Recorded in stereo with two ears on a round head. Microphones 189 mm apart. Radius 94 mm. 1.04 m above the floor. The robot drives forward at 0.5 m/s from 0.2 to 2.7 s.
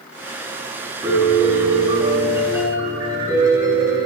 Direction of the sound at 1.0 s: 15° right (ahead or behind).